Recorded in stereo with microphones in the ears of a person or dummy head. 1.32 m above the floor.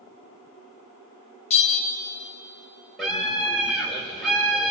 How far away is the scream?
About 6 m.